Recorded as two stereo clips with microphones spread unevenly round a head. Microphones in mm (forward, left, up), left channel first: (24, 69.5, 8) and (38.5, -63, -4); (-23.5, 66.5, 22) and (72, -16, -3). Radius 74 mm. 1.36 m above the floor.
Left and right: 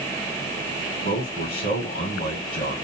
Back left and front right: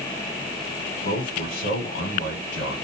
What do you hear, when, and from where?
1.0 s a man speaking: 125° left, 1.2 m